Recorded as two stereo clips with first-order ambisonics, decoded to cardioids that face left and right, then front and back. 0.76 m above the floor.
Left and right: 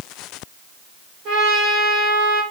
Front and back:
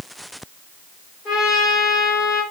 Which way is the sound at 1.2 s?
55° right.